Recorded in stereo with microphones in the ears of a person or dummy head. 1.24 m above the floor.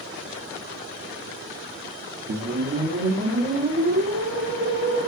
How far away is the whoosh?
About 0.6 m.